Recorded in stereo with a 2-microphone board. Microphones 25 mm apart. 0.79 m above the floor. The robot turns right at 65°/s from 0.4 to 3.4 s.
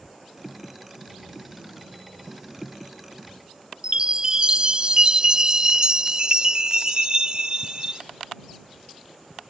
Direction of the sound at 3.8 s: 35° right (ahead or behind).